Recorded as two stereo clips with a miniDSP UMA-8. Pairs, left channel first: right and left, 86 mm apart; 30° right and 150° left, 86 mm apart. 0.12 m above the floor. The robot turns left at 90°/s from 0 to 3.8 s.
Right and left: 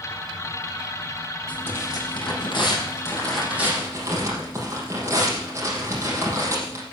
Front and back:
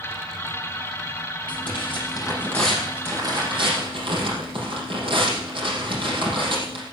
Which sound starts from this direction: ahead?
Tearing paper, at 1.5 s.